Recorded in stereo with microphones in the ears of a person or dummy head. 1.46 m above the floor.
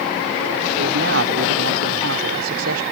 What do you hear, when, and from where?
0.8 s a man speaking: 65° right (ahead or behind); by 2.8 s 80° right